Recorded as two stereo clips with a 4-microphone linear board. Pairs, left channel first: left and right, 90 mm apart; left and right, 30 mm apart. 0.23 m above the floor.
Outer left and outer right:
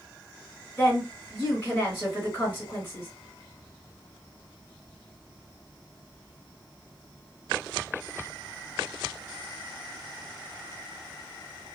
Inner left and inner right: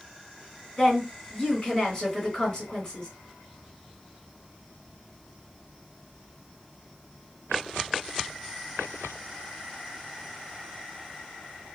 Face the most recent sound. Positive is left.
turn(degrees=25)  # may be behind; listen again after turning